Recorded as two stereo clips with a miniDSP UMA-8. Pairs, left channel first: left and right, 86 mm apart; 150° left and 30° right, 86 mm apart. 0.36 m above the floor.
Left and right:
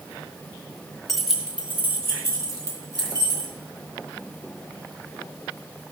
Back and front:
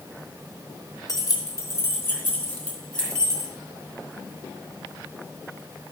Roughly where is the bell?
I don't hear a bell.